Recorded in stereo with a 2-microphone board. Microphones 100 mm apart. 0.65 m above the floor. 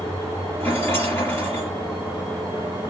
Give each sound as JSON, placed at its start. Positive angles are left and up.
{"t": 0.6, "sound": "a rattle", "side_deg": 25, "distance_m": 4.5}